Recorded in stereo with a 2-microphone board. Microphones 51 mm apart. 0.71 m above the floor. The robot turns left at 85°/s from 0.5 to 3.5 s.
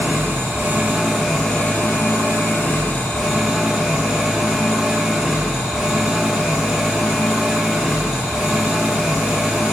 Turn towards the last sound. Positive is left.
turn(degrees=0)